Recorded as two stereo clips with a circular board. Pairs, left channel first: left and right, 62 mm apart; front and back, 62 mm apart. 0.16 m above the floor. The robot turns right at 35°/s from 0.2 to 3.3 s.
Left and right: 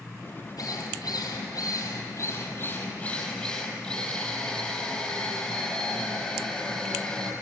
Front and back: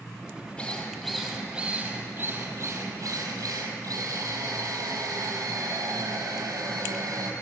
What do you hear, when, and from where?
0.6 s a drill: 70° left, 4 m; by 7.3 s 165° left, 4 m